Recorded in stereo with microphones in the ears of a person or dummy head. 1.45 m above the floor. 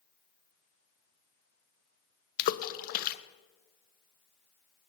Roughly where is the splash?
Left.